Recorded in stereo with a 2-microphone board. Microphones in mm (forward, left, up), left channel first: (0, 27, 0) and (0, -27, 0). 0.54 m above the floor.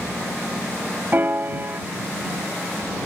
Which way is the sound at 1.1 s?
40° right (ahead or behind).